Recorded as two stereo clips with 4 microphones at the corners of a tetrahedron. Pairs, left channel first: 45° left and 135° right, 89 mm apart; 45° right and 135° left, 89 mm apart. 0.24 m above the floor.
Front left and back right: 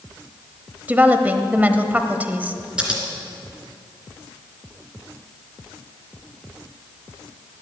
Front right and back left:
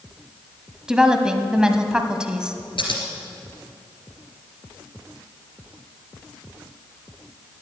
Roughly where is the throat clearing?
I don't hear throat clearing.